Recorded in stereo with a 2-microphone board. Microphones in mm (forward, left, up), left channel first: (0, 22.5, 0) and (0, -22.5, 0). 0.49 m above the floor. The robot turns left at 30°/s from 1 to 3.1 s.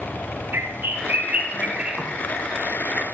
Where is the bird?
130° right, 1.1 m; by 2.1 s 165° right, 1.1 m.